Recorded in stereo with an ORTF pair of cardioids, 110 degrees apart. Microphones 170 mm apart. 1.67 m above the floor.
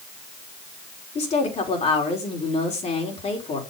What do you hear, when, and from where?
1.1 s a woman speaking: 40° left, 4 m